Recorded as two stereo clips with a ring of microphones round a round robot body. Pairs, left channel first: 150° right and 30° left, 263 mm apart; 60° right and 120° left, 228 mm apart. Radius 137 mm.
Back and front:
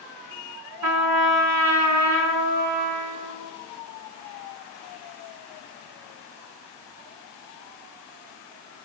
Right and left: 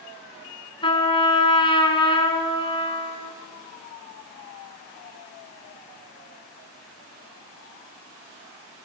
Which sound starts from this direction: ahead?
A trumpet, at 0.8 s.